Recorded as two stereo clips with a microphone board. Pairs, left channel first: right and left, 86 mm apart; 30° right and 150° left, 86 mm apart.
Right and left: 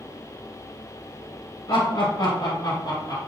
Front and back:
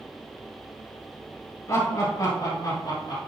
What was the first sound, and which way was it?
Laughter, 65° right.